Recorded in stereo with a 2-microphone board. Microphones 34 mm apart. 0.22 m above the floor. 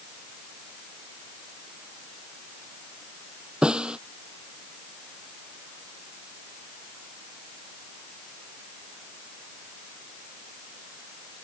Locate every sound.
3.6 s a snare drum: 30° right (ahead or behind)